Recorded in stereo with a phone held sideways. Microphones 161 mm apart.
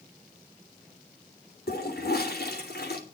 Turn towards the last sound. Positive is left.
turn(degrees=80)